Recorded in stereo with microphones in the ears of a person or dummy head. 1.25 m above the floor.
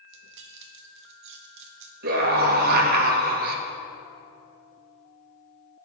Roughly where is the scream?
Right.